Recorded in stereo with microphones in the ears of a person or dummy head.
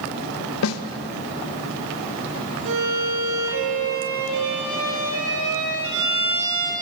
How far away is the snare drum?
About 1.1 m.